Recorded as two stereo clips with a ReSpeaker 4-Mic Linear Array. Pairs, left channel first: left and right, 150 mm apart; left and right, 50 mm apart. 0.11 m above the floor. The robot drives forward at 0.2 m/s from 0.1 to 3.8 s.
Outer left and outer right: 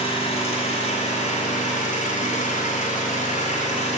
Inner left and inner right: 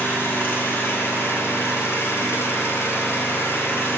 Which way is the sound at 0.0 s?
40° left (ahead or behind).